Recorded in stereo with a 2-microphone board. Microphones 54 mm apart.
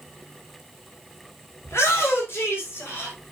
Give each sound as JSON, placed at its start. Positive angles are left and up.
{"t": 1.6, "sound": "a shout", "side_deg": 55, "distance_m": 3.5}